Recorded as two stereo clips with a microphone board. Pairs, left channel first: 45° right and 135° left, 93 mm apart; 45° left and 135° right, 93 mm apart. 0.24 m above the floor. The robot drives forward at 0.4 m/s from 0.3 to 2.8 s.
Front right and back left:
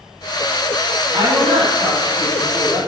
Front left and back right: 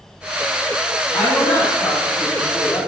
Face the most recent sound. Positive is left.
turn(degrees=130)